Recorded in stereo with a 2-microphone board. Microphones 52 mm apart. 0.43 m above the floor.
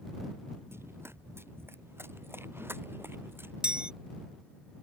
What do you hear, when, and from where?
0.7 s running footsteps: 55° right (ahead or behind); by 3.5 s 45° right (ahead or behind)
3.6 s a chime: 20° right (ahead or behind)